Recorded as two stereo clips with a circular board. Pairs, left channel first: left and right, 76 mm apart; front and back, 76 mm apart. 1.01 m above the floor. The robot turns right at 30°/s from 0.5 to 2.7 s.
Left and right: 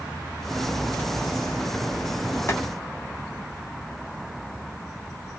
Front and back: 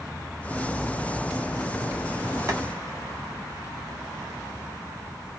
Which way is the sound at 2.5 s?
140° left.